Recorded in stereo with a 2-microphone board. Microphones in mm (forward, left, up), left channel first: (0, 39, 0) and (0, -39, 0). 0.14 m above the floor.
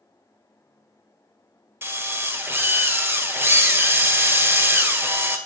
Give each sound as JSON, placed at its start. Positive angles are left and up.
{"t": 1.8, "sound": "a drill", "side_deg": -30, "distance_m": 1.5}